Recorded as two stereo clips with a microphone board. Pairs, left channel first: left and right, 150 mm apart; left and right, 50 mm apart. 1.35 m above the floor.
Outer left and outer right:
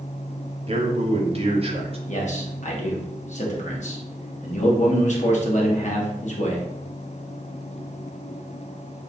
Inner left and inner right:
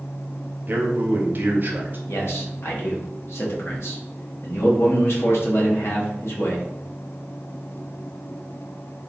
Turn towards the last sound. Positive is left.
turn(degrees=55)  # may be behind; listen again after turning